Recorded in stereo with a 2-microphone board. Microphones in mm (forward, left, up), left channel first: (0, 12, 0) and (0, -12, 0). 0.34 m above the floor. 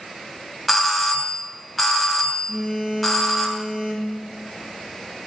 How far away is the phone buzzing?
About 4.5 m.